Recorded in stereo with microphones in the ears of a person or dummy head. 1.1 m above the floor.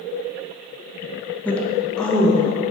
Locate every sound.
1.4 s a woman speaking: 10° left (ahead or behind), 0.9 m; by 2.5 s centre (ahead or behind), 1.5 m